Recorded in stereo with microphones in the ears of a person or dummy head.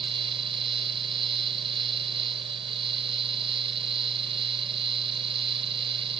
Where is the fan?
30° right (ahead or behind).